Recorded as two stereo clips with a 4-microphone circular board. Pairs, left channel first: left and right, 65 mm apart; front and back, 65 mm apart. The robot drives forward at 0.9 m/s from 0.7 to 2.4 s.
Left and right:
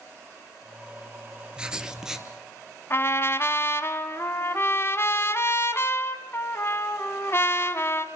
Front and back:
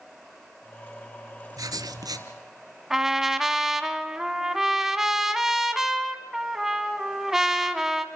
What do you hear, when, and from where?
1.6 s writing: 165° right, 0.8 m; by 2.3 s 170° right, 1.4 m
2.9 s a trumpet: 100° left, 1.1 m